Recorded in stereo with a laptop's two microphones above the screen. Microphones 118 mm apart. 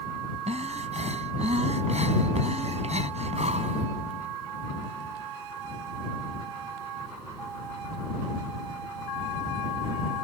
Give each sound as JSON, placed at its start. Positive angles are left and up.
{"t": 0.5, "sound": "breathing", "side_deg": -75}